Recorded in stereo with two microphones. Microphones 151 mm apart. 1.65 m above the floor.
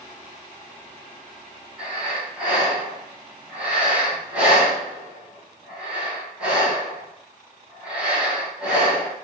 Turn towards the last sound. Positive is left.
turn(degrees=-5)  # may be behind; listen again after turning